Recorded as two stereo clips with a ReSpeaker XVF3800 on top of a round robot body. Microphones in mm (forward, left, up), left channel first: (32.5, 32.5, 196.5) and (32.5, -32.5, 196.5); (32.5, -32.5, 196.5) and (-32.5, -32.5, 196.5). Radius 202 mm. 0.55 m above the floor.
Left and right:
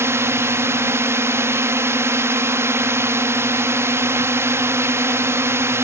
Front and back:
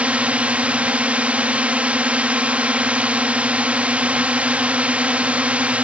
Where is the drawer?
No drawer in this recording.